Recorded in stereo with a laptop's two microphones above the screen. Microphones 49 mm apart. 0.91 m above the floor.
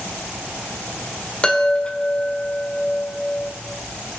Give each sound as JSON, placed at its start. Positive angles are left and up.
{"t": 1.4, "sound": "a chime", "side_deg": 20, "distance_m": 1.6}